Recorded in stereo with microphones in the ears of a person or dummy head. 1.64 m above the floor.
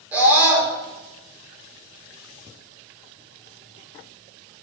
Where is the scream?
10° right (ahead or behind), 6 m.